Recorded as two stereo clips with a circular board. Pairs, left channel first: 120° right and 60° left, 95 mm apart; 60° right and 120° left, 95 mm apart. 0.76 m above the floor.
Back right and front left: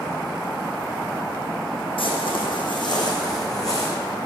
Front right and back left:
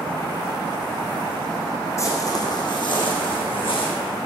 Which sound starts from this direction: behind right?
Footsteps, at 2.0 s.